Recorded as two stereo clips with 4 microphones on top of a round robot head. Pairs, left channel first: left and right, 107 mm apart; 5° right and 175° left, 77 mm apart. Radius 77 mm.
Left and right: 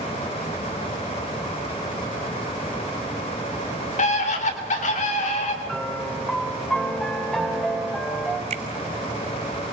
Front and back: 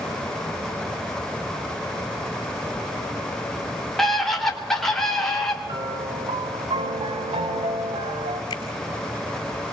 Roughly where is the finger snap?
Ahead right.